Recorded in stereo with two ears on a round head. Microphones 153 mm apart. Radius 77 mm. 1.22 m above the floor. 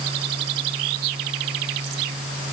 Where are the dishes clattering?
I don't hear dishes clattering.